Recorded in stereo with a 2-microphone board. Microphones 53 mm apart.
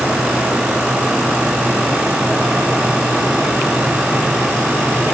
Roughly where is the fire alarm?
I don't hear a fire alarm.